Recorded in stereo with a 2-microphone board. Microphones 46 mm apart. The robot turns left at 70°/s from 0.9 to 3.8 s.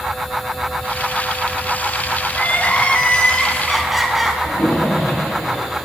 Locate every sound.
2.3 s crying: 100° left, 1.4 m; by 4.3 s 5° right, 1.4 m
4.4 s a splash: 75° left (ahead or behind), 4 m